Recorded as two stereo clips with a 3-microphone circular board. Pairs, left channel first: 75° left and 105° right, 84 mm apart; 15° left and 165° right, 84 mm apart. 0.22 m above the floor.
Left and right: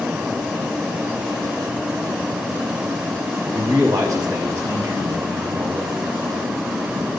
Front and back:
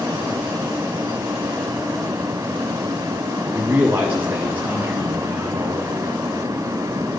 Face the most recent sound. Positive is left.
turn(degrees=-110)